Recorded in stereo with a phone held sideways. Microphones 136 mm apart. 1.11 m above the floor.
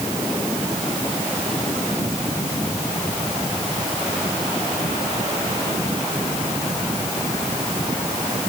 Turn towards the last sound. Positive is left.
No sound to turn to.